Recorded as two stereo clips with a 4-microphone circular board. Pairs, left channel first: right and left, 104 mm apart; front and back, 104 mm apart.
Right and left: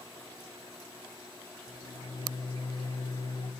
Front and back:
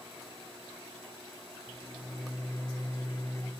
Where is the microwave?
60° right, 1.1 m.